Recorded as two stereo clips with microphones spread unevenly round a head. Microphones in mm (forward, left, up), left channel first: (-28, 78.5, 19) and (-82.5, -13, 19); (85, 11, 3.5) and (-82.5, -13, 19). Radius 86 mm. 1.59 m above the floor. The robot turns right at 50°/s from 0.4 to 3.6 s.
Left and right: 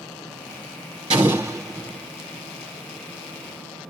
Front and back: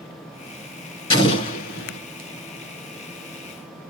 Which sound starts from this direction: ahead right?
An explosion, at 1.1 s.